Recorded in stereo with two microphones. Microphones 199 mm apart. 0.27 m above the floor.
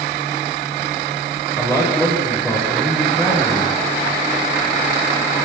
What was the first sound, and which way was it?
A man speaking, 15° left (ahead or behind).